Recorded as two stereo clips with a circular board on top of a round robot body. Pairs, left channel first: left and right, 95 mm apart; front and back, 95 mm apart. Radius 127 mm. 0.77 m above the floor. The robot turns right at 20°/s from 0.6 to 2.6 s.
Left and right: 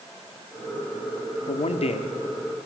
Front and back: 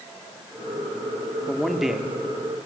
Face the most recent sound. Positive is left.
turn(degrees=110)